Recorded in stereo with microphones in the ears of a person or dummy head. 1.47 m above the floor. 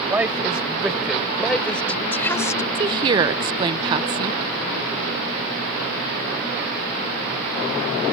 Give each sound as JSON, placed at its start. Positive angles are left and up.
{"t": 0.1, "sound": "a woman speaking", "side_deg": -10}
{"t": 2.8, "sound": "a woman speaking", "side_deg": -25}